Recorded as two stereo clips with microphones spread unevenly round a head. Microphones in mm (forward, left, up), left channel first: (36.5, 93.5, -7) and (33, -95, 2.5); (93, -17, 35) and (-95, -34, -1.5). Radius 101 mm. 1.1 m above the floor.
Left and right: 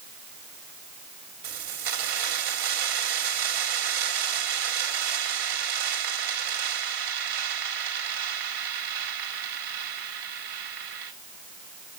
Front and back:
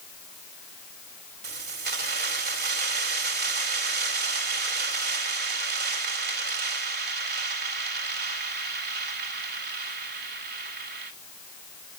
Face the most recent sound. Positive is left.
turn(degrees=-135)